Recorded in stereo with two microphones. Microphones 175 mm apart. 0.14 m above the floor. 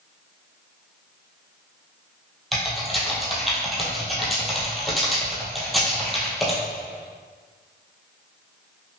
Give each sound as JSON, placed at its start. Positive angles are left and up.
{"t": 2.5, "sound": "typing on a keyboard", "side_deg": 0, "distance_m": 1.3}